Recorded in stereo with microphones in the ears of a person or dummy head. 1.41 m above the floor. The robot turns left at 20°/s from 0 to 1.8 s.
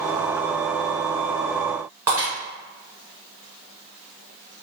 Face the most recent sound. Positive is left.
turn(degrees=-15)  # may be behind; listen again after turning